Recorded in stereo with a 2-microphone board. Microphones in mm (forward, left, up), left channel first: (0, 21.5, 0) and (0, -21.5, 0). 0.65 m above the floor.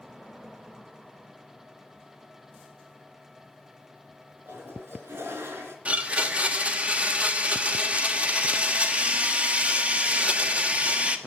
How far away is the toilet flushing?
About 3 m.